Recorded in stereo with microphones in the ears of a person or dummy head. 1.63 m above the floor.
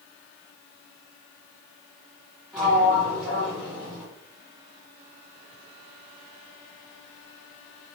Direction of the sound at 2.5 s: Centre (ahead or behind).